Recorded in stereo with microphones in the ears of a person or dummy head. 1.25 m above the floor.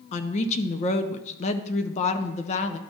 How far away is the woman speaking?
About 0.5 m.